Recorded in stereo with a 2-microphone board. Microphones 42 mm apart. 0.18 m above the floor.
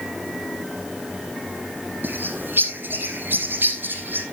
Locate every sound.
2.0 s a bird: 50° right (ahead or behind), 1.4 m